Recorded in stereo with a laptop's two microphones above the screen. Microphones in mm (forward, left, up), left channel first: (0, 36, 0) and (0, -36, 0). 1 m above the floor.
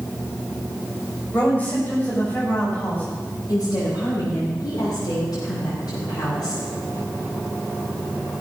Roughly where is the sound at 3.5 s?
Left.